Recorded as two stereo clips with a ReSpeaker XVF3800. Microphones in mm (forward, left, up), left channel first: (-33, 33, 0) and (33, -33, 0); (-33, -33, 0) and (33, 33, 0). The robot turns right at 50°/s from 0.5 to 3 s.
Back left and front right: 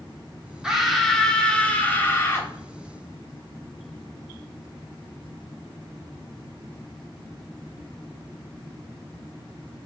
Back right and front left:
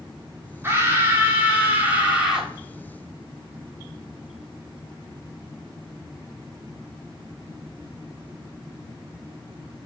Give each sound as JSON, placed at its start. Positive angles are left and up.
{"t": 0.6, "sound": "a scream", "azimuth_deg": 30, "distance_m": 1.0}